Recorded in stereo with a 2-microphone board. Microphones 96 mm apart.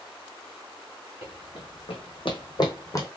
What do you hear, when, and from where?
1.2 s running footsteps: 75° left (ahead or behind), 1.6 m; by 3.1 s 35° left (ahead or behind), 1.2 m